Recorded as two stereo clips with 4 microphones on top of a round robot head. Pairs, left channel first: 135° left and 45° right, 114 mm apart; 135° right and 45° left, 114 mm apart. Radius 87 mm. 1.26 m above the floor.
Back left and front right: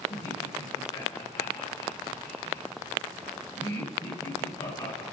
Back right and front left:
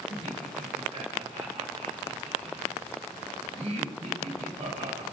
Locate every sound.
0.1 s laughter: 80° left, 1.9 m